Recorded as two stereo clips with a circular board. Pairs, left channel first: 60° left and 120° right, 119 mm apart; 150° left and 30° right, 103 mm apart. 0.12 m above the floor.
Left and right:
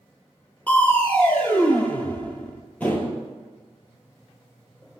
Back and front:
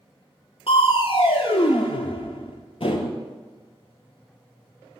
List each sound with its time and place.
0.7 s crushing: 135° left, 0.5 m